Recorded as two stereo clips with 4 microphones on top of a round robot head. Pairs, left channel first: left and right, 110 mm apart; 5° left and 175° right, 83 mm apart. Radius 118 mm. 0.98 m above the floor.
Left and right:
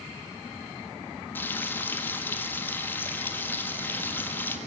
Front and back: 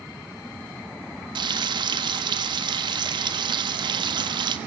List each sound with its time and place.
1.4 s frying: 165° left, 1.6 m